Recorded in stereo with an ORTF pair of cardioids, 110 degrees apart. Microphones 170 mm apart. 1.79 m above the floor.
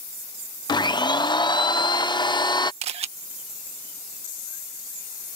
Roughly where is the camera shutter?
Ahead right.